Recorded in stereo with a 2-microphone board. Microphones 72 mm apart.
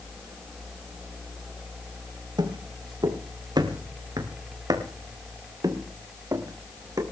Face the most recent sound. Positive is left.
turn(degrees=-45)  # may be behind; listen again after turning